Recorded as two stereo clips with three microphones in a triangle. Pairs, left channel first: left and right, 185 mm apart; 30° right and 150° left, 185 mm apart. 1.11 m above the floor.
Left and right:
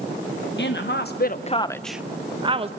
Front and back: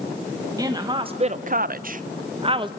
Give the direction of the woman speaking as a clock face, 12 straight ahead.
9 o'clock.